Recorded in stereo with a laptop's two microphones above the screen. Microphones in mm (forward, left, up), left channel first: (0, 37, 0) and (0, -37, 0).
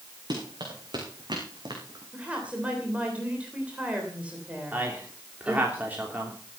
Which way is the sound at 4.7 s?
20° right (ahead or behind).